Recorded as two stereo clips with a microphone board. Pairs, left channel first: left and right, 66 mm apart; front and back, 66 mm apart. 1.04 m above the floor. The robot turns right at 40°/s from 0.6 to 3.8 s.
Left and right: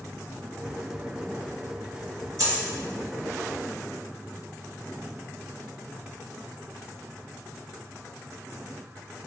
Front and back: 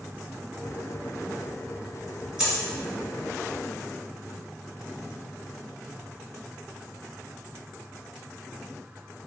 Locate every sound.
2.4 s a dropped coin: 105° right, 1.5 m; by 2.6 s 100° right, 1.5 m